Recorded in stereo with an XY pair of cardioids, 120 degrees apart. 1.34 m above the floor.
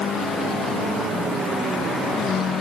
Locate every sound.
Only background noise.